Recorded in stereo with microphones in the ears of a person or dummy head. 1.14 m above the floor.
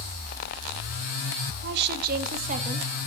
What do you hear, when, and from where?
1.6 s a woman speaking: 65° right (ahead or behind), 1.2 m; by 2.9 s 35° right (ahead or behind), 1.3 m